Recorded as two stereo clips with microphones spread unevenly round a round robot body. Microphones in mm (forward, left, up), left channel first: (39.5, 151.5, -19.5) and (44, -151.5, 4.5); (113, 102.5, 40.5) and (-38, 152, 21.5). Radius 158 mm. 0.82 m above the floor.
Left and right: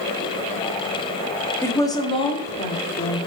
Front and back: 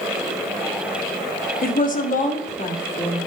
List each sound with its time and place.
1.6 s a woman speaking: 10° left, 1.4 m; by 3.2 s 30° left, 2 m